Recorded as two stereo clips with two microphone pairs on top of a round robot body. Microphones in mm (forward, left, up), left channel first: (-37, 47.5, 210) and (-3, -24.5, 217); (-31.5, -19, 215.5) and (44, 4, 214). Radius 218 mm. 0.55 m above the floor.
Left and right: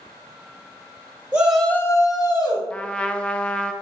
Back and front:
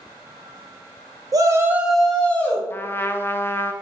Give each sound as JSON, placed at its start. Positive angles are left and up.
{"t": 1.3, "sound": "a shout", "azimuth_deg": 5, "distance_m": 0.7}
{"t": 2.7, "sound": "a trumpet", "azimuth_deg": 165, "distance_m": 0.5}